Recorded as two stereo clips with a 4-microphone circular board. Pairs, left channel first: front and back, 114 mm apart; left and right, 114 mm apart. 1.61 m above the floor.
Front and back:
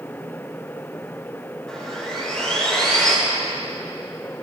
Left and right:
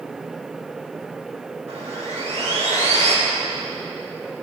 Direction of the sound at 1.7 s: 85° right.